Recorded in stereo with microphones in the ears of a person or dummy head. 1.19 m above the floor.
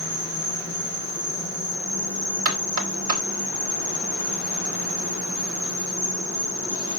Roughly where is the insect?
Right.